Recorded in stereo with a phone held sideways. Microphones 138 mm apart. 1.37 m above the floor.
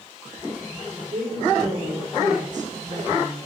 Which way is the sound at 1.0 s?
80° right.